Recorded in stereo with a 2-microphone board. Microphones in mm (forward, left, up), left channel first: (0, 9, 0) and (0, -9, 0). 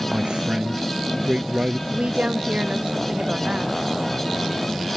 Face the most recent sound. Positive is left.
turn(degrees=-75)  # may be behind; listen again after turning